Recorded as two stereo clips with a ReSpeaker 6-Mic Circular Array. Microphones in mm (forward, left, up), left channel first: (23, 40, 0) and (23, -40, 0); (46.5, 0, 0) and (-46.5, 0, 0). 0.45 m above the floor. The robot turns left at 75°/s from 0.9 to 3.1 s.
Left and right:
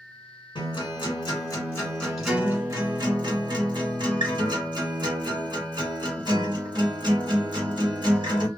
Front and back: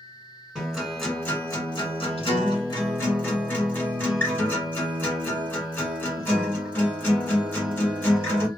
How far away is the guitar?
About 1.6 m.